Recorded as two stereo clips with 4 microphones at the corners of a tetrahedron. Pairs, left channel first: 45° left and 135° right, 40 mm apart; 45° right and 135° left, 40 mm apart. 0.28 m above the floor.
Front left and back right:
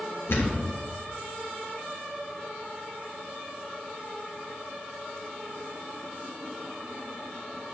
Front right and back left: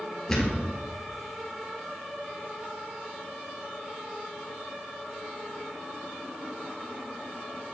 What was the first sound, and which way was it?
A thud, 35° left.